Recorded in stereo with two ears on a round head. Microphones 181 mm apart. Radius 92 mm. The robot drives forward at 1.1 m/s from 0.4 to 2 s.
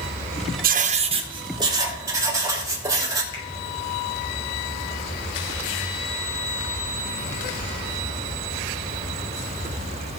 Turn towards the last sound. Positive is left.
turn(degrees=25)  # may be behind; listen again after turning